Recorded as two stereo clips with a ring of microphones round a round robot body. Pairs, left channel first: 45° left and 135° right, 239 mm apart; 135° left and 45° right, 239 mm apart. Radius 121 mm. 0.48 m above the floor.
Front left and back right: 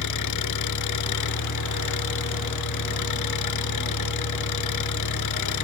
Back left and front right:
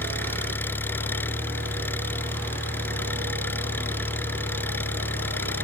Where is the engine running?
55° left.